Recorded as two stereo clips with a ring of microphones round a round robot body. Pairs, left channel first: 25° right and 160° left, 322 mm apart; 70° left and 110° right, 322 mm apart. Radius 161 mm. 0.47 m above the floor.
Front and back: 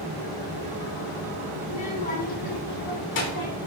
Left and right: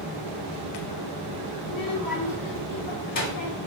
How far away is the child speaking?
About 3 m.